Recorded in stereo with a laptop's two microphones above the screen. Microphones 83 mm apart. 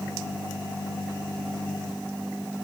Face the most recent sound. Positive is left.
No sound to turn to.